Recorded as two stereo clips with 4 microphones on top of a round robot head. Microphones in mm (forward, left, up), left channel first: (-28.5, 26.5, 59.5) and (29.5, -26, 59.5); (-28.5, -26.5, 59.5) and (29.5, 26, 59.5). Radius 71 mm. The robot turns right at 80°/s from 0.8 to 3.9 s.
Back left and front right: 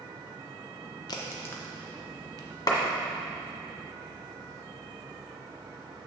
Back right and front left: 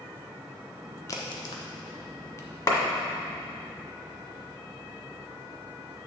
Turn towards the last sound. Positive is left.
turn(degrees=-85)